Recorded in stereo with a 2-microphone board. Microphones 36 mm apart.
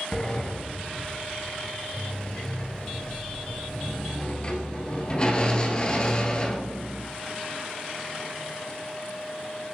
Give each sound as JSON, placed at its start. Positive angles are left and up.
{"t": 0.1, "sound": "a sliding door", "side_deg": 25, "distance_m": 1.0}